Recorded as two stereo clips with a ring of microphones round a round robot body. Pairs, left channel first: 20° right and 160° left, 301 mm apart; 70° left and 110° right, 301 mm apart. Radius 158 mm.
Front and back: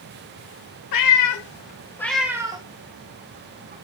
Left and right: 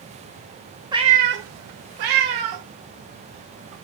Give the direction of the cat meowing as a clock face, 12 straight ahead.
1 o'clock.